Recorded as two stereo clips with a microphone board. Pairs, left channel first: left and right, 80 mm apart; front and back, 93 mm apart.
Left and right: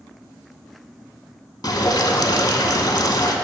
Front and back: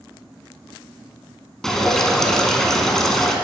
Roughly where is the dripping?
Left.